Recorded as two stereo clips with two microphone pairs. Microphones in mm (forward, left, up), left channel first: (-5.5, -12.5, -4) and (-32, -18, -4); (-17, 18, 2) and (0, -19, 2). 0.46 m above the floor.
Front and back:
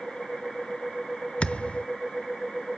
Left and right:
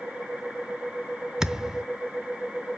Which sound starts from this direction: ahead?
A thud, at 1.4 s.